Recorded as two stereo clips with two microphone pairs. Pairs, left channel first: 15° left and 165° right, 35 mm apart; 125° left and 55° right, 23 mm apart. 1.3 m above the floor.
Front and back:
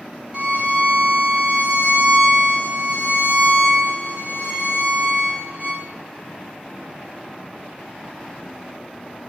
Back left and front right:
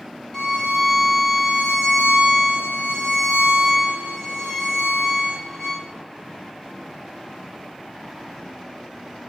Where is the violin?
Straight behind, 1.0 m.